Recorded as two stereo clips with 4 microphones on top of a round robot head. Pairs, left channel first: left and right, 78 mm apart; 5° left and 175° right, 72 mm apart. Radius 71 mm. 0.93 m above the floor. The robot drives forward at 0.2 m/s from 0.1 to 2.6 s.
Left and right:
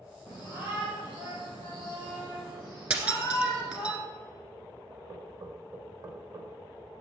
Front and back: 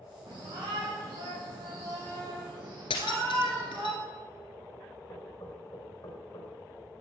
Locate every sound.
0.3 s a shout: 170° right, 4.5 m
2.9 s breaking glass: 25° right, 1.5 m
5.1 s knocking: 65° right, 4 m